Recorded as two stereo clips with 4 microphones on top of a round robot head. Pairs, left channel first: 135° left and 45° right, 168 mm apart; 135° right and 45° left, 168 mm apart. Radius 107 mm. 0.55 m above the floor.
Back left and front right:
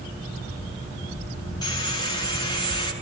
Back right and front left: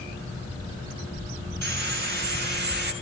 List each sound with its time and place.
1.6 s sawing: 65° left, 6 m